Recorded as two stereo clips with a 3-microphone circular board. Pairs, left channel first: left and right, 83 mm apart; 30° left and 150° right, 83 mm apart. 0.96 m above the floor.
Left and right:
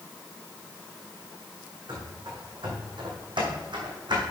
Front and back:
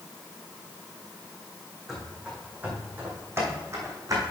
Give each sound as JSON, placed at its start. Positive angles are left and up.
{"t": 1.9, "sound": "running footsteps", "azimuth_deg": -65, "distance_m": 3.0}